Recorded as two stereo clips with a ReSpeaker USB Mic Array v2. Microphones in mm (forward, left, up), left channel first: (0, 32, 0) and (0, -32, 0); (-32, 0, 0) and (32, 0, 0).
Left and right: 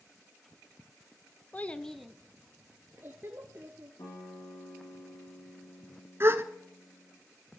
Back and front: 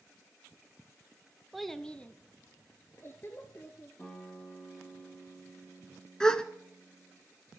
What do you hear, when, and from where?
1.5 s a child speaking: 85° left, 0.7 m; by 3.9 s 135° right, 1.8 m
4.0 s a guitar: 100° left, 6.5 m
6.2 s a gasp: 110° right, 0.8 m